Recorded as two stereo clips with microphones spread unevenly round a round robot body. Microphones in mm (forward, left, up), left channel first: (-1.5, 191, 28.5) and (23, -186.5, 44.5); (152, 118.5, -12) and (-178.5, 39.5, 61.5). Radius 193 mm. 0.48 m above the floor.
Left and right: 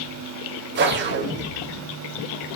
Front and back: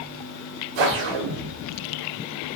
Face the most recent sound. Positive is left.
turn(degrees=-150)